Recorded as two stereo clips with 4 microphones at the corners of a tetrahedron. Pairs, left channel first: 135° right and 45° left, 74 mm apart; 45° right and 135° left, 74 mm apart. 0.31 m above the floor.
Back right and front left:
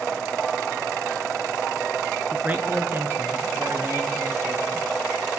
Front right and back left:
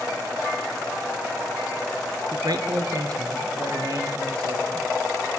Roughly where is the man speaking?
Left.